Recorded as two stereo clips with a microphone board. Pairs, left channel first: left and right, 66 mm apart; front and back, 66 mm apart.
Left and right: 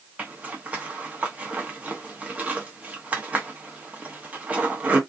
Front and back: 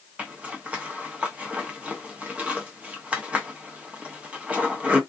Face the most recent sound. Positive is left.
turn(degrees=-130)